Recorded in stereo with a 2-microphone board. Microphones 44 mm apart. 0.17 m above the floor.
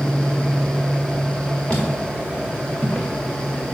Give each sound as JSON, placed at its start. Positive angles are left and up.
{"t": 1.7, "sound": "footsteps", "side_deg": 15, "distance_m": 2.0}